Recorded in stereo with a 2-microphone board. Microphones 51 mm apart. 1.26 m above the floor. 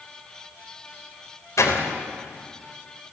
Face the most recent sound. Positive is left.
turn(degrees=85)